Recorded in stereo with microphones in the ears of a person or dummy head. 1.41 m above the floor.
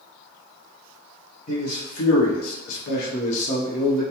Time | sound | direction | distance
1.5 | a man speaking | 45° left (ahead or behind) | 0.8 m